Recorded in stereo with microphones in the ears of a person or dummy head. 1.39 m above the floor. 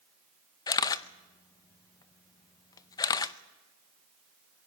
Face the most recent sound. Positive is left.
turn(degrees=20)  # may be behind; listen again after turning